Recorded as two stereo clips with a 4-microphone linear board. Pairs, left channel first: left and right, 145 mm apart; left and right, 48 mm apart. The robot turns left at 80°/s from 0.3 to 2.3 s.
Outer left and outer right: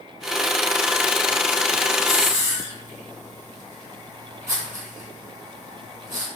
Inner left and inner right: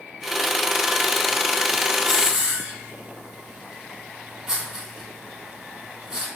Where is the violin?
I don't hear a violin.